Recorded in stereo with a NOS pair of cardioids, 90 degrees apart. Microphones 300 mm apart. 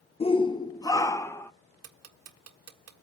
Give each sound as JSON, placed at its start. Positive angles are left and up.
{"t": 0.2, "sound": "a shout", "azimuth_deg": 20, "distance_m": 0.7}
{"t": 1.8, "sound": "ticking", "azimuth_deg": -55, "distance_m": 1.6}